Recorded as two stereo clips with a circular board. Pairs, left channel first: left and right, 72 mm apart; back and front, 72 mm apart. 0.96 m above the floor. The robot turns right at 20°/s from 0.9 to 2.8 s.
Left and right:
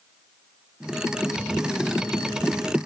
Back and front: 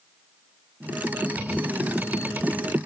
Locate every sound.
Only background noise.